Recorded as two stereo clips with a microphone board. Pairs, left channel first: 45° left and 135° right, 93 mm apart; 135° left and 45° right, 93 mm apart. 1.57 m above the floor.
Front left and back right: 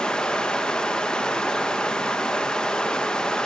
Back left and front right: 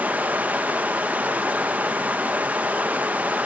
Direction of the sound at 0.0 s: 20° right.